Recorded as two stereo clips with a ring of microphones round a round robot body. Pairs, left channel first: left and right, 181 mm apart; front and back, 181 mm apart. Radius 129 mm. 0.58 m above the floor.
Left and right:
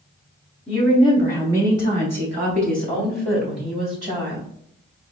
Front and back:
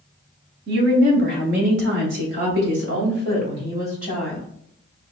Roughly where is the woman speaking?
Behind.